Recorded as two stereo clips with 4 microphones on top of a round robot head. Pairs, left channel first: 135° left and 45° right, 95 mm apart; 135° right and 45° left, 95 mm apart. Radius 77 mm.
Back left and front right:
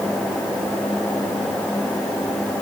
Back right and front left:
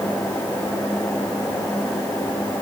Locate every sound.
Only background noise.